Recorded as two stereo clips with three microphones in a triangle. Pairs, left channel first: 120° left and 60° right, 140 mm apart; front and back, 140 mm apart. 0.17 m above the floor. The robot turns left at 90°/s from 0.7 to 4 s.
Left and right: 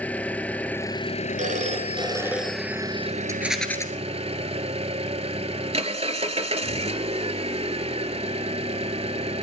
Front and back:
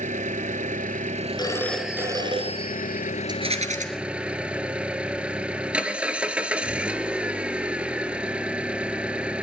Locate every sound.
0.0 s an engine running: 160° right, 0.7 m; by 9.4 s 100° right, 0.7 m
1.4 s a phone ringing: 55° right, 1.9 m; by 3.1 s 150° left, 1.9 m
3.3 s a rattle: 125° right, 1.7 m; by 3.9 s 175° right, 1.7 m